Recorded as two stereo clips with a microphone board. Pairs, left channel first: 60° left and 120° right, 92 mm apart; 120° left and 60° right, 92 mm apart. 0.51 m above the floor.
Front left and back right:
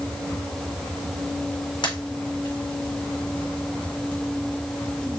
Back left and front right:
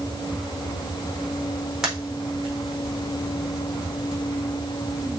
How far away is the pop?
About 4 m.